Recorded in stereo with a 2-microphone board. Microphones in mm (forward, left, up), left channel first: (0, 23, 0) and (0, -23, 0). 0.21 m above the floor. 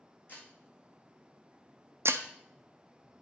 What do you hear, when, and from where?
0.3 s breaking glass: 40° left (ahead or behind), 2 m
2.0 s breaking glass: 70° right (ahead or behind), 0.6 m